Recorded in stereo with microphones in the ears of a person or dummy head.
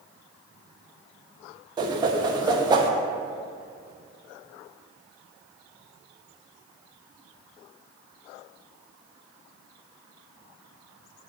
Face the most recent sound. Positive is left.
turn(degrees=-25)  # may be behind; listen again after turning